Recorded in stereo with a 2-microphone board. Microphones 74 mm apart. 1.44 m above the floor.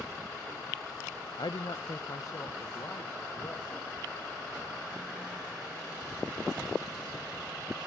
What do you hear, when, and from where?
1.4 s a man speaking: 70° left (ahead or behind), 0.6 m; by 3.9 s 40° left (ahead or behind), 3 m